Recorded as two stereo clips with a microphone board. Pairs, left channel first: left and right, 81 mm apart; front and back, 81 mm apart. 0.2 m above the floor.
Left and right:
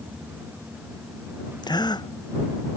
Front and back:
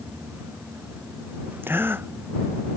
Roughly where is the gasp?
Behind left.